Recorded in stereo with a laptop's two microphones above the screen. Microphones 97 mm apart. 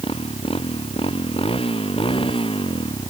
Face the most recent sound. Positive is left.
turn(degrees=60)  # may be behind; listen again after turning